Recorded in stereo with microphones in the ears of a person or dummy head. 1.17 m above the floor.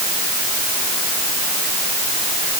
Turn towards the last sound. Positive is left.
No sound to turn to.